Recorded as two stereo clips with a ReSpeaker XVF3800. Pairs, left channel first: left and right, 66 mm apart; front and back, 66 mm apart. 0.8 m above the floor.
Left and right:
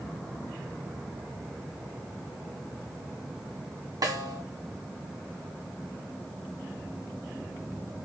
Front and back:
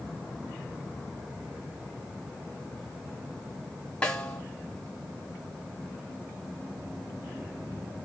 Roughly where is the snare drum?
Right.